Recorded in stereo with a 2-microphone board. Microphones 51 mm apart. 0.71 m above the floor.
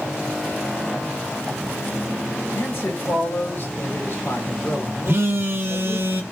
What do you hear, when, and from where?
2.5 s a man speaking: 60° left (ahead or behind), 2 m
5.1 s a phone buzzing: 55° right (ahead or behind), 0.8 m